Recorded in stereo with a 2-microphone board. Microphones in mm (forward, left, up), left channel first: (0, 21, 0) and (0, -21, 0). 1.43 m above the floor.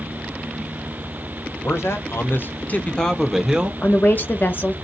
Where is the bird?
No bird in this recording.